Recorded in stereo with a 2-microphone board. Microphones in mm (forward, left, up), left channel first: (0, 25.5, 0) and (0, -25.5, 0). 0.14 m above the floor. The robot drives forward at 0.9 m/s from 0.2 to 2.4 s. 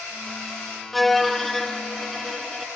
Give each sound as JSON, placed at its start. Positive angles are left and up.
{"t": 0.9, "sound": "a violin", "side_deg": 0, "distance_m": 0.7}